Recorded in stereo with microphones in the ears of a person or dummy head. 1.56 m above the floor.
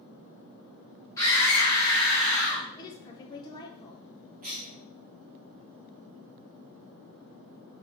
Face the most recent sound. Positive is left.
turn(degrees=-35)  # may be behind; listen again after turning